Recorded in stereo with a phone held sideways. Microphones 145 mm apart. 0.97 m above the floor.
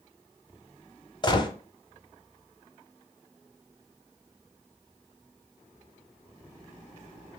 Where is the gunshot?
30° left (ahead or behind), 0.9 m.